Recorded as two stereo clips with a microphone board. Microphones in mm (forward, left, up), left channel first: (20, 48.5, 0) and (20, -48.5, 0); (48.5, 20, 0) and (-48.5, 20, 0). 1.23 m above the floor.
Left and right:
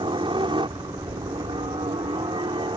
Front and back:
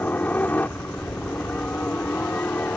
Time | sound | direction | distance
0.0 | a helicopter | 70° right | ?